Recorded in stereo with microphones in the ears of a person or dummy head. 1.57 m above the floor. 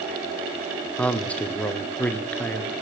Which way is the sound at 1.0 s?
5° left (ahead or behind).